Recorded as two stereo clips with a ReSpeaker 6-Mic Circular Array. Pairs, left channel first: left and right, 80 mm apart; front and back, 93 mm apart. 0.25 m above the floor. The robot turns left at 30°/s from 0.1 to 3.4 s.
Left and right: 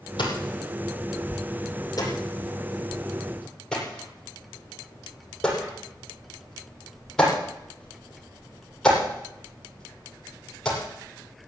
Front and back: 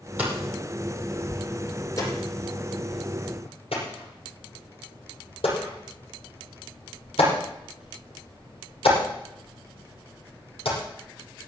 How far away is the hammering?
About 8 m.